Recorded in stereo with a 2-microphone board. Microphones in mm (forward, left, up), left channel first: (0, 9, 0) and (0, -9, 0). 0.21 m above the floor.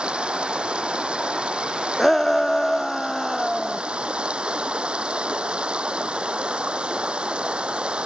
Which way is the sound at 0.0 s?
70° right (ahead or behind).